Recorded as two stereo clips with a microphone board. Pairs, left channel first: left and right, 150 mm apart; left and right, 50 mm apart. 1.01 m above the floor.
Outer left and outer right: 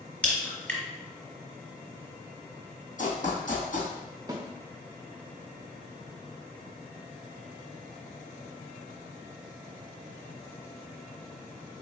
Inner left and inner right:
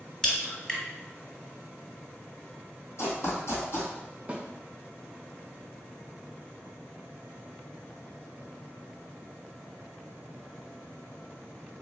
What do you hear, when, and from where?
0.2 s a crack: 10° left (ahead or behind), 1.5 m
3.0 s running footsteps: 60° left (ahead or behind), 2.0 m
4.3 s a snare drum: 25° right (ahead or behind), 0.6 m